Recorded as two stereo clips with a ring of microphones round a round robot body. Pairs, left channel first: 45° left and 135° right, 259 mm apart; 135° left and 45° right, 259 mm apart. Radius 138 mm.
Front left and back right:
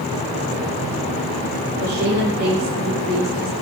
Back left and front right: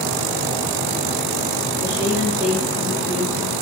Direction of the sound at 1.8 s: 120° right.